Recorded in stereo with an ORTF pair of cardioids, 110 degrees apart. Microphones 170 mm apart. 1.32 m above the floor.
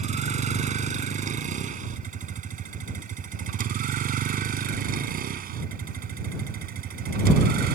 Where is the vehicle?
45° right; by 7.8 s 65° right.